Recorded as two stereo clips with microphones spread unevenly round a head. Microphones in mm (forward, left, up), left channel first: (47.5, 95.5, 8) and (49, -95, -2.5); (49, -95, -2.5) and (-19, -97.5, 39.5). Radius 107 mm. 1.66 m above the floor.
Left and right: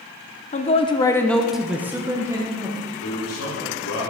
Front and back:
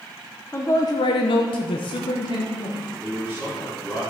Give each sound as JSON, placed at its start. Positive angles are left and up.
{"t": 0.5, "sound": "a man speaking", "azimuth_deg": 110, "distance_m": 0.6}
{"t": 3.0, "sound": "a man speaking", "azimuth_deg": 90, "distance_m": 3.5}